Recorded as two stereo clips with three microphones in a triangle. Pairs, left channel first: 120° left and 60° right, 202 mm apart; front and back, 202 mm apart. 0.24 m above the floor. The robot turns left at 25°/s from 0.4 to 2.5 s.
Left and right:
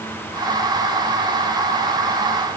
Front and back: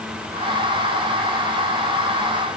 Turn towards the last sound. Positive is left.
No sound to turn to.